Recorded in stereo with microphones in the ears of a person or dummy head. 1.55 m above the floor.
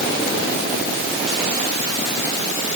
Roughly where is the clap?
No clap in this recording.